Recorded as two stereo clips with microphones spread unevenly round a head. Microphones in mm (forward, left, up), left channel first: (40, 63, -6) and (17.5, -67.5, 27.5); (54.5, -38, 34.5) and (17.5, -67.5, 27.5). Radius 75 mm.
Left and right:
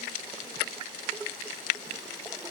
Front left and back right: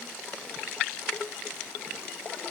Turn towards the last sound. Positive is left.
No sound to turn to.